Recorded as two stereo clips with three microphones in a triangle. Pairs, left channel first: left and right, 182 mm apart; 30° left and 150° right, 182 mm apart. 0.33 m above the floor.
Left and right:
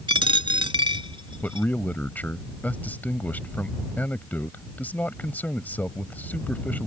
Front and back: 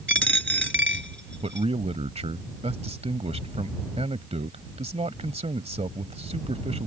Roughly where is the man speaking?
Behind.